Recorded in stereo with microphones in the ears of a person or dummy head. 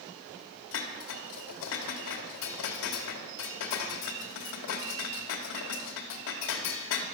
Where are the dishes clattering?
65° left (ahead or behind), 2 m.